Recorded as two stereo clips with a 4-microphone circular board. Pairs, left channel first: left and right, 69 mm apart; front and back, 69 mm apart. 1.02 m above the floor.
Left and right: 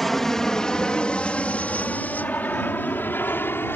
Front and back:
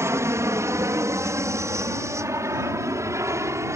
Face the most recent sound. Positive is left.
turn(degrees=145)